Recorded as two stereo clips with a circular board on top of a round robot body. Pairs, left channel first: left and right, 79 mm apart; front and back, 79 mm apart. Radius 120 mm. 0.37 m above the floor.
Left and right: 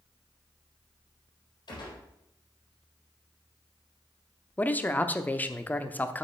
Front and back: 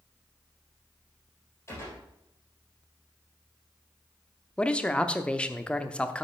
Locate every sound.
1.7 s a gunshot: 60° left, 4 m
4.6 s a man speaking: 60° left, 0.9 m